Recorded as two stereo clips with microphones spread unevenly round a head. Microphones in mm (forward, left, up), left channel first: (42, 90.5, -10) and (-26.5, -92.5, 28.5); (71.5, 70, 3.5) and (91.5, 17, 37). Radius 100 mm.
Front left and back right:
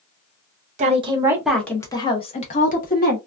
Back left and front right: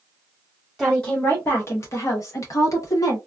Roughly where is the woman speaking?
Behind.